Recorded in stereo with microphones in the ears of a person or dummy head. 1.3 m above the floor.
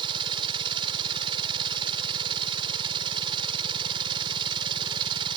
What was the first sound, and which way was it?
A machine running, 25° right (ahead or behind).